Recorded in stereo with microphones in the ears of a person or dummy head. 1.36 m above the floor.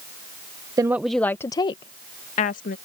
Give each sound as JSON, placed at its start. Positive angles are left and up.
{"t": 0.8, "sound": "a woman speaking", "side_deg": -20}